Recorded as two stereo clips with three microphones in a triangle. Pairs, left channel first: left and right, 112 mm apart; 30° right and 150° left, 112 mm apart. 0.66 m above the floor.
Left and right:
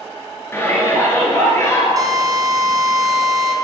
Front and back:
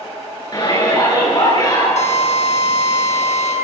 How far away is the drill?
About 4.5 m.